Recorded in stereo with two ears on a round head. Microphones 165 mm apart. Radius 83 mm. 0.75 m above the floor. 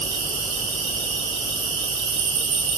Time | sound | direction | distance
0.0 | an insect | 75° right (ahead or behind) | 3 m